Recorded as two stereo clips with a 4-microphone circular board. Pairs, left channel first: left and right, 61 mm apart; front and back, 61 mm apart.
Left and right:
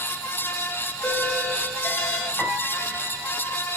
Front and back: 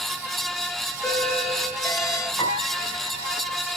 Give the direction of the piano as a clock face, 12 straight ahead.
12 o'clock.